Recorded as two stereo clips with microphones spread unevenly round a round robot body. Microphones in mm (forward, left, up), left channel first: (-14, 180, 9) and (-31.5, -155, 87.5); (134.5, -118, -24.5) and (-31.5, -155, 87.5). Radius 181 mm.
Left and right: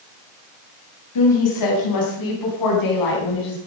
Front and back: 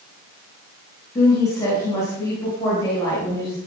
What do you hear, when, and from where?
1.1 s a woman speaking: 75° left, 3 m; by 3.6 s 80° left, 4.5 m